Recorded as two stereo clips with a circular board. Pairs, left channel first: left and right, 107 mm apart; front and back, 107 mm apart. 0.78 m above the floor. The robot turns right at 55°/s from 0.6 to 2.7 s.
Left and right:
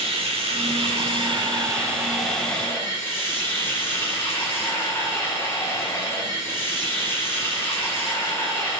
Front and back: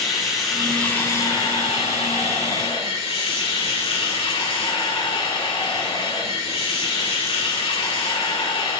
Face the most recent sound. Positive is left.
turn(degrees=25)